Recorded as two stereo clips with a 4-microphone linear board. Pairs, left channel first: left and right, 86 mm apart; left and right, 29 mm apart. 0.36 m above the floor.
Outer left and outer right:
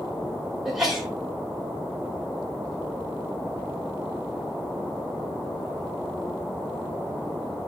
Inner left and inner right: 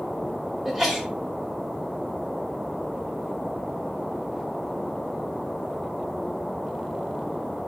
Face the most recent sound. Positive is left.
turn(degrees=-5)  # may be behind; listen again after turning